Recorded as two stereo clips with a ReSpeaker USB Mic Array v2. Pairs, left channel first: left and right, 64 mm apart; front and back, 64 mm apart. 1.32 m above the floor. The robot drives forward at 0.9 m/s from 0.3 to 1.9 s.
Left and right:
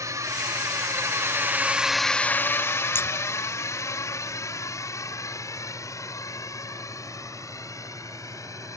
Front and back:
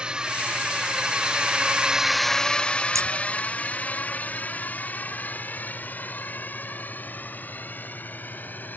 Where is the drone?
110° right; by 8.8 s 60° left.